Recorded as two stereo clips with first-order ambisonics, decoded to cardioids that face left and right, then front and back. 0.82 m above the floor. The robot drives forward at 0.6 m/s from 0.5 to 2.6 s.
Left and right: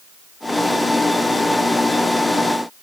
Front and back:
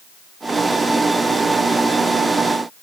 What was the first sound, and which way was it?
Only background noise.